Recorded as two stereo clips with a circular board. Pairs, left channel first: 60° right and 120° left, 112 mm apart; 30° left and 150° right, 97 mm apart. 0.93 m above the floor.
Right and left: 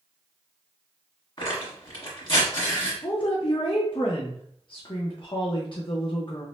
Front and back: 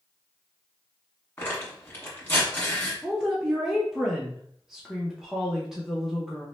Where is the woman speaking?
65° right, 0.6 m.